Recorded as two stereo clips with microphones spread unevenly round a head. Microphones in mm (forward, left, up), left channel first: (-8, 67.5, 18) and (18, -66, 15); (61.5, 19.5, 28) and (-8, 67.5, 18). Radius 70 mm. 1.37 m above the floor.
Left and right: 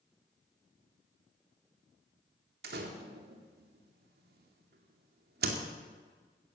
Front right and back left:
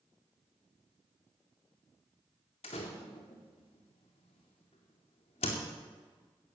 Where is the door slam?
65° right, 2 m.